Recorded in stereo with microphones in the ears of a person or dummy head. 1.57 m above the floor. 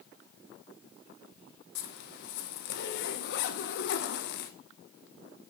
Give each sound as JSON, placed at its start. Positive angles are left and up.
{"t": 1.8, "sound": "a zipper", "side_deg": 65, "distance_m": 1.0}